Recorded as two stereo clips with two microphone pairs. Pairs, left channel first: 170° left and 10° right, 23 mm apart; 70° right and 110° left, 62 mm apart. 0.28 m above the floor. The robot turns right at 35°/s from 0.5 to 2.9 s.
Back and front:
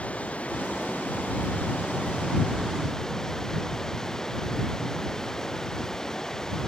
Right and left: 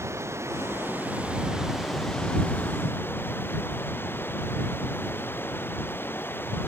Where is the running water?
150° left; by 6.7 s 125° right.